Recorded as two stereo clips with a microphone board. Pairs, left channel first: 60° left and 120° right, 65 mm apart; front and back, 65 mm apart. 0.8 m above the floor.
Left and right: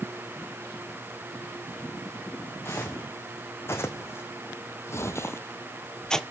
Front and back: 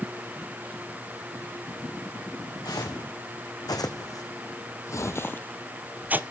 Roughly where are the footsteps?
Ahead.